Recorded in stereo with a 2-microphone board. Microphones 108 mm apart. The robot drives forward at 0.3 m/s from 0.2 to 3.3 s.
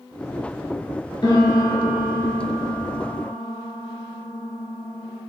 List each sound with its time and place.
1.2 s a piano: 45° left (ahead or behind), 0.8 m; by 5.2 s 30° left (ahead or behind), 1.3 m